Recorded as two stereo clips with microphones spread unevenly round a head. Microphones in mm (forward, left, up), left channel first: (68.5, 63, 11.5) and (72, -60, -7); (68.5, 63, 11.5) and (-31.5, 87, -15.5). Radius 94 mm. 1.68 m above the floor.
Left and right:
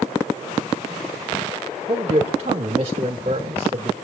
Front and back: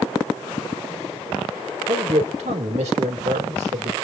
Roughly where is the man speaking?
Behind right.